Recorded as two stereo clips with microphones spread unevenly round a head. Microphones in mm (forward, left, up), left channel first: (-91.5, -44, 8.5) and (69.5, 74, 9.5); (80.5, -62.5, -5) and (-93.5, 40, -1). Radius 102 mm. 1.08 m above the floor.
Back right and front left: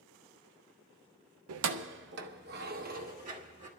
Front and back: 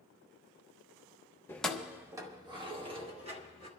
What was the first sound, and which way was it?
Keys jangling, 50° left.